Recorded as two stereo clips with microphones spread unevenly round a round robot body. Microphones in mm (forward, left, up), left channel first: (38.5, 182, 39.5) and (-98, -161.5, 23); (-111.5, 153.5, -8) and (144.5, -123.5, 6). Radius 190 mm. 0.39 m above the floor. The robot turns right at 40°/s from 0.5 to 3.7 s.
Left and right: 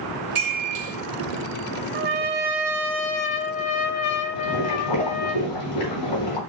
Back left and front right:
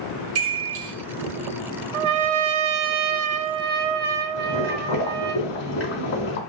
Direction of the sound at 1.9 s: 50° right.